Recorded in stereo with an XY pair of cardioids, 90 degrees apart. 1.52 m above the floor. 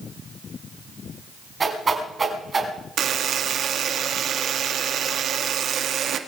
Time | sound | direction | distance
1.6 | a whoosh | 30° right | 5 m
3.0 | a buzzer | 70° right | 1.9 m